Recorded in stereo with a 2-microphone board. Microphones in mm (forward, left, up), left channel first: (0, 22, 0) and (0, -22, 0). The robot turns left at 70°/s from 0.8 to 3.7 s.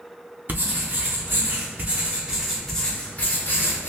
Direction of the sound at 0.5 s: 55° right.